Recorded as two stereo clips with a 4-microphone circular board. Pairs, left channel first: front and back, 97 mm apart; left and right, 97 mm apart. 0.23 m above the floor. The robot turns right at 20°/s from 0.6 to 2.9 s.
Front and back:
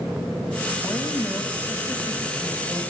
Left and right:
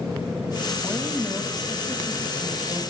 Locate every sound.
0.8 s a woman speaking: 50° left, 1.2 m; by 2.8 s 90° left, 1.2 m